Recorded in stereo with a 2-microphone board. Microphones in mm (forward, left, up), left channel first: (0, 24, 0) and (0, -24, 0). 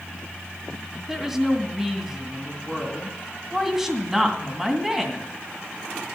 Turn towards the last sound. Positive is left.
turn(degrees=-5)  # may be behind; listen again after turning